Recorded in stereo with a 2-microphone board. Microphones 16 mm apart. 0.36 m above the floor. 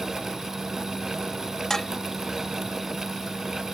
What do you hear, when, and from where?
1.7 s dishes clattering: 25° left (ahead or behind)